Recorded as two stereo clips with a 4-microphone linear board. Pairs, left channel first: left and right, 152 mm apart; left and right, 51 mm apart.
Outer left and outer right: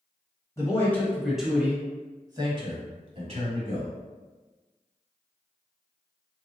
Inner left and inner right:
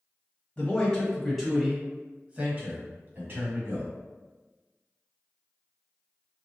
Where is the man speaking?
20° left (ahead or behind), 1.1 m; by 3.9 s 50° right (ahead or behind), 1.7 m.